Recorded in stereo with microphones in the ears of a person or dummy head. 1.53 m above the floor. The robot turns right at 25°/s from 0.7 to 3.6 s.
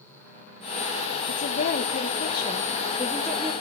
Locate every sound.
1.3 s a woman speaking: 130° left, 1.1 m; by 3.5 s 175° right, 1.1 m